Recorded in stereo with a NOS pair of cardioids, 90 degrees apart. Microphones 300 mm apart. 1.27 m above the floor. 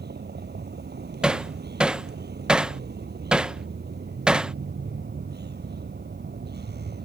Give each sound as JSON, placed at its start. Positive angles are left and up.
{"t": 0.0, "sound": "a vehicle", "azimuth_deg": -30}
{"t": 1.2, "sound": "hammering", "azimuth_deg": 0}